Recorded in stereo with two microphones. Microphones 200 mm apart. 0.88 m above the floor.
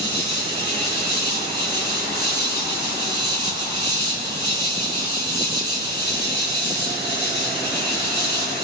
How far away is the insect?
About 9 m.